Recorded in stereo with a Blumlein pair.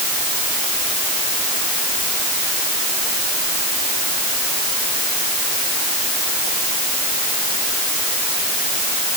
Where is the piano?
No piano in this recording.